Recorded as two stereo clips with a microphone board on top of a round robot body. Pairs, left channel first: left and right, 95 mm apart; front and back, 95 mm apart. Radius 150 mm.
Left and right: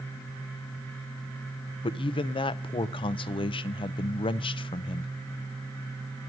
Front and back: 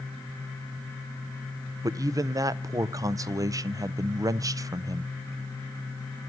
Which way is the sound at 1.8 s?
125° left.